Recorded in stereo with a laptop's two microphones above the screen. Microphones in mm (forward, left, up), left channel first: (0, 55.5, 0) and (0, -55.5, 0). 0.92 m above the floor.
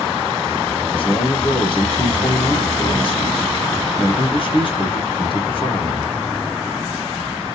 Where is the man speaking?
50° left (ahead or behind), 1.1 m.